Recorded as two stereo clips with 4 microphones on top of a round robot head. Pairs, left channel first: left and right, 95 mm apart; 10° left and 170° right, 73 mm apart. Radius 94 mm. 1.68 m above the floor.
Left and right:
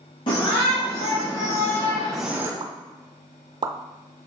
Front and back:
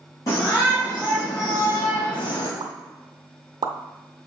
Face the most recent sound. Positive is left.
turn(degrees=-135)